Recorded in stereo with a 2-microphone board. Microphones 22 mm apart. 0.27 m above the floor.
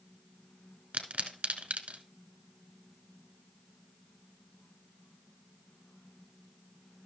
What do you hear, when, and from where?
0.9 s a pop: 80° right, 1.2 m